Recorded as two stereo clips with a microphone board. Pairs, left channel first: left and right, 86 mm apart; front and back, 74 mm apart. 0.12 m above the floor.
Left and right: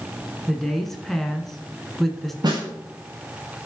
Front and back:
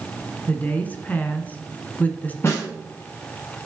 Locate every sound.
0.5 s a woman speaking: 10° left, 1.1 m
2.4 s a snare drum: 55° right, 2.5 m